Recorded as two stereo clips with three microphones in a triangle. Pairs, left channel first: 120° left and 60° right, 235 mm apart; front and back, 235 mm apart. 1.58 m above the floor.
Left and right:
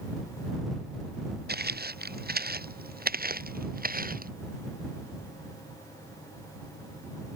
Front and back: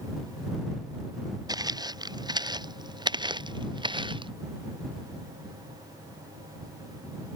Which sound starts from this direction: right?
Footsteps, at 1.5 s.